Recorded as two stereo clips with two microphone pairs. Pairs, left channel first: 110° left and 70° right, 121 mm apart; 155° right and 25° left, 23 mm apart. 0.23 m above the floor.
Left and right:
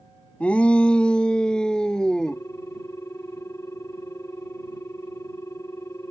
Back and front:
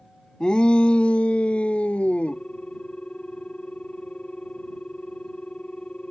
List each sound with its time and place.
0.4 s a shout: straight behind; by 2.4 s 170° right
2.3 s a ringtone: 175° left